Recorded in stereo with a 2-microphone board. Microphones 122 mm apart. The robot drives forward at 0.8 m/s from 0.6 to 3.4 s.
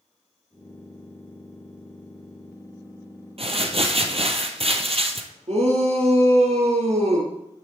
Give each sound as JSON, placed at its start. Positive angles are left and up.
{"t": 3.4, "sound": "crumpling", "side_deg": -55, "distance_m": 1.2}
{"t": 5.5, "sound": "a shout", "side_deg": -60, "distance_m": 3.5}